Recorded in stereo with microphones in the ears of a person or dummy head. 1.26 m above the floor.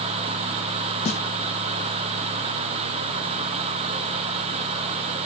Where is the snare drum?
25° left (ahead or behind), 0.6 m.